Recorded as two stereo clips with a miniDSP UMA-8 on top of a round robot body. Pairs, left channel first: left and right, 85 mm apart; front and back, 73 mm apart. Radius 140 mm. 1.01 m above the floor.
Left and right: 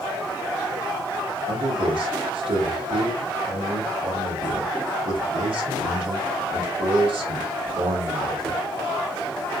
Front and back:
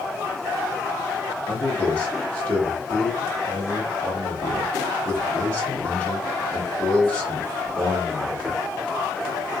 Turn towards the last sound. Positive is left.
turn(degrees=-75)